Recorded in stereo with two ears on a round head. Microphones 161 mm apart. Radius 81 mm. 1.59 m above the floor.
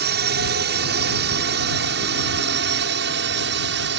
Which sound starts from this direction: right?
A drone, at 0.0 s.